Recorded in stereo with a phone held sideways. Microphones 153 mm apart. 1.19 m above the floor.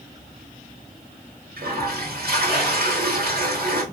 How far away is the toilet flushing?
About 1.5 m.